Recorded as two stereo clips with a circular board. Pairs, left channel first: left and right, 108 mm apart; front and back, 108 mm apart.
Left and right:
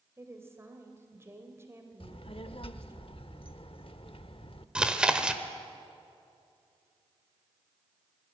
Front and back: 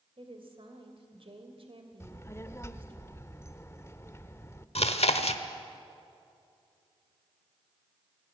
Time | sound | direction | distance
0.2 | a woman speaking | 155° right | 3 m
2.0 | a child speaking | 65° left | 0.9 m
4.8 | chewing | 10° right | 1.2 m